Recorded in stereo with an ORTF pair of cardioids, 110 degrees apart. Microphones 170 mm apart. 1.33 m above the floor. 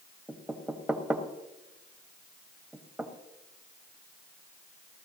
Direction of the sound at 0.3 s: 5° right.